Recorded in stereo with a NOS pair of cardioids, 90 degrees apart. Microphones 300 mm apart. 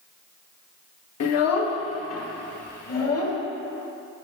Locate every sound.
1.2 s a child speaking: 60° left, 0.9 m; by 3.4 s 55° left, 2 m